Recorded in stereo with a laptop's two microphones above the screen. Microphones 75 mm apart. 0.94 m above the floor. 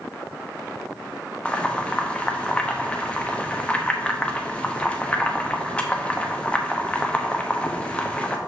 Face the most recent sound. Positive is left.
turn(degrees=15)  # may be behind; listen again after turning